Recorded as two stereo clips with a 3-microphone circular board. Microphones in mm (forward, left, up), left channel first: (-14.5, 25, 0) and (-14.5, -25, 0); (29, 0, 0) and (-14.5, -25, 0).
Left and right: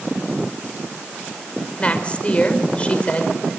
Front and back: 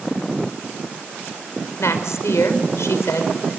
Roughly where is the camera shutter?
No camera shutter in this recording.